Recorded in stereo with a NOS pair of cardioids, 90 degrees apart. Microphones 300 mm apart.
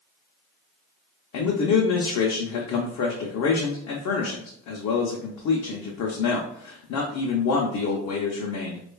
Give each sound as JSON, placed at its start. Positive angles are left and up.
{"t": 1.3, "sound": "a man speaking", "azimuth_deg": 60, "distance_m": 0.7}